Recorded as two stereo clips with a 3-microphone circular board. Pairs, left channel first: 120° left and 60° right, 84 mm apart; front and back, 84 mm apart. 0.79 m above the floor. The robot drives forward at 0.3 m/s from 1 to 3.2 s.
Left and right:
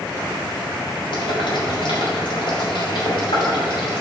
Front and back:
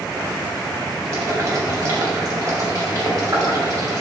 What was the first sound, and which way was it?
Boiling, 130° left.